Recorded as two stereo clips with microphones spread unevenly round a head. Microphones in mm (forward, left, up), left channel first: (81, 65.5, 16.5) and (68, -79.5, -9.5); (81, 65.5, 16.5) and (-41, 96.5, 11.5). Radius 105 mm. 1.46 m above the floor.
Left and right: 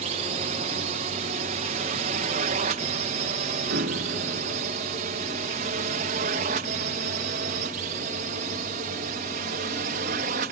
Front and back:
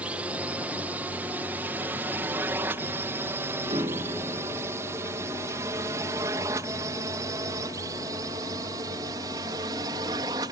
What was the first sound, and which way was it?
A drone, 115° right.